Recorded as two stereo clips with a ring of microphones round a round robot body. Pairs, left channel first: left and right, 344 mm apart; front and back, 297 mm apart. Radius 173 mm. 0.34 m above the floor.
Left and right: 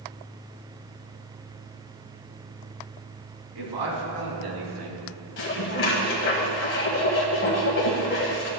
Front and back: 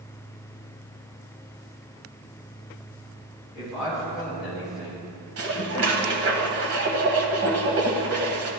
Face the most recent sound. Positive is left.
turn(degrees=145)